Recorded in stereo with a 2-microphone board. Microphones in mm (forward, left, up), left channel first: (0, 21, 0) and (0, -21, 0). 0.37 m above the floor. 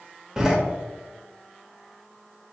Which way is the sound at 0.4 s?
15° right (ahead or behind).